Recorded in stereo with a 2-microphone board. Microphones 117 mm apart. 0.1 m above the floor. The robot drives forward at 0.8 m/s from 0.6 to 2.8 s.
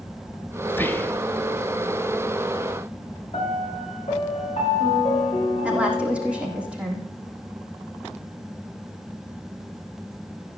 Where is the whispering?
15° left (ahead or behind), 1.4 m.